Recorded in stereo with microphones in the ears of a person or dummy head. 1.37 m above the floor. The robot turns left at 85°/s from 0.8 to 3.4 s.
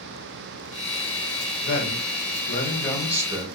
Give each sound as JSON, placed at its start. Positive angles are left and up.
{"t": 1.6, "sound": "a man speaking", "azimuth_deg": 115, "distance_m": 1.6}